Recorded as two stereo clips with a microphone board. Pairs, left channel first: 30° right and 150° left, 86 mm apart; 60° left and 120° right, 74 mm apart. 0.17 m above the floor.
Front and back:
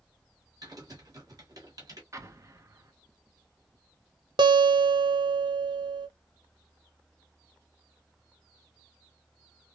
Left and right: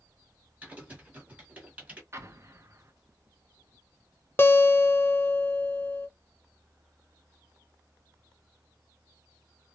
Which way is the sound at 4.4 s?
120° left.